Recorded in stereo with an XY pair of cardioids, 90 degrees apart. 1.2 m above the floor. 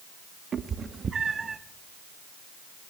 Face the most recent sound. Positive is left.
turn(degrees=-35)